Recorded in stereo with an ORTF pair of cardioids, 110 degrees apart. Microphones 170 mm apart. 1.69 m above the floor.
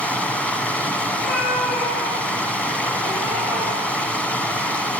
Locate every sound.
0.0 s running water: 5° left, 1.0 m
1.1 s a cat meowing: 65° left, 4.5 m